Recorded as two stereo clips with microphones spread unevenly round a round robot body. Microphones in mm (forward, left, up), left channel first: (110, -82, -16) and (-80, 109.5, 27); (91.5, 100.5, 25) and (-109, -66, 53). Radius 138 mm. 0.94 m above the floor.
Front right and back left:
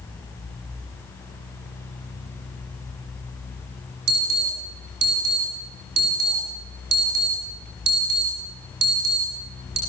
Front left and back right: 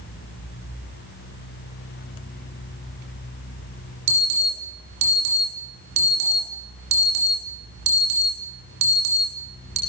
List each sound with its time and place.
4.1 s an alarm: 170° right, 8 m